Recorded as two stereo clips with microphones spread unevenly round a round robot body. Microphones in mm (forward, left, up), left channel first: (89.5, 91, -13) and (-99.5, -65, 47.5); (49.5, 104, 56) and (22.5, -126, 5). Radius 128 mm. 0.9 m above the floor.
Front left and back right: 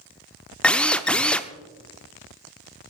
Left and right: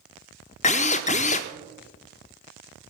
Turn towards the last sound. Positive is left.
turn(degrees=135)